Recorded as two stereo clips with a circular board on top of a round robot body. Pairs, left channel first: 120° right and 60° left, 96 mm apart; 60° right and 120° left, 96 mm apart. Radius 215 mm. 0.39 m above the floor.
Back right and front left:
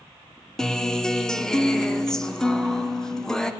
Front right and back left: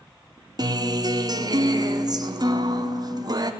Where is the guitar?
155° left, 1.6 m.